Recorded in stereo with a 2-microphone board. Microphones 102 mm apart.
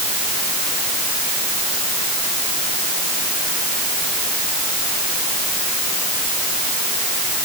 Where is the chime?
I don't hear a chime.